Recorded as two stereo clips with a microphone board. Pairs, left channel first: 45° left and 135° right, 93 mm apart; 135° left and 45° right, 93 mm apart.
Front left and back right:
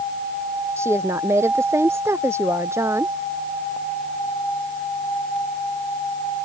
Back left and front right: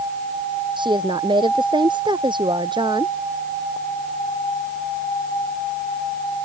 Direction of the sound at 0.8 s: 75° right.